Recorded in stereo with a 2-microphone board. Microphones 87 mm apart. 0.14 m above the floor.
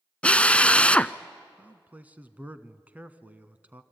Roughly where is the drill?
Centre.